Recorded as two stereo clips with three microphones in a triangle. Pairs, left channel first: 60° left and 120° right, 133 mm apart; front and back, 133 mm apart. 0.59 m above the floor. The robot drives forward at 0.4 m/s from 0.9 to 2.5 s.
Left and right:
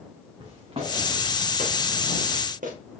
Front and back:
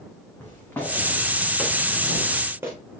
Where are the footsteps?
70° right, 3.5 m; by 2.7 s 110° right, 2.5 m.